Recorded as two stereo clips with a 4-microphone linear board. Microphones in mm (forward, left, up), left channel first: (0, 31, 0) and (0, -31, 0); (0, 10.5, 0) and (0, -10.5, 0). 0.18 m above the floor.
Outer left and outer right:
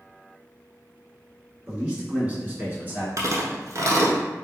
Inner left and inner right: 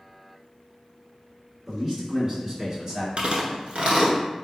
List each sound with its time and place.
1.7 s a man speaking: 20° right (ahead or behind), 1.8 m; by 3.1 s 30° right (ahead or behind), 1.5 m
3.2 s chewing: 60° right (ahead or behind), 0.9 m